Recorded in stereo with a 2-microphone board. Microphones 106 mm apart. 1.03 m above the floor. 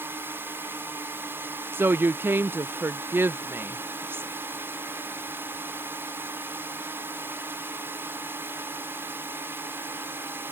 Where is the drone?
20° right (ahead or behind).